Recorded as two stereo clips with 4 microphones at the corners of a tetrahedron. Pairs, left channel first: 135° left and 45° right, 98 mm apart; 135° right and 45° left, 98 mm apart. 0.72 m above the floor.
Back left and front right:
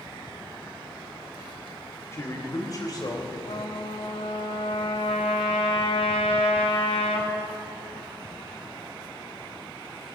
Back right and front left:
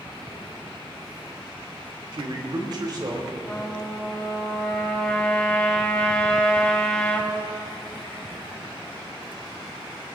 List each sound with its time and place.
2.1 s a man speaking: 75° left, 2 m; by 3.4 s 95° left, 3 m
3.5 s a trumpet: 145° left, 3 m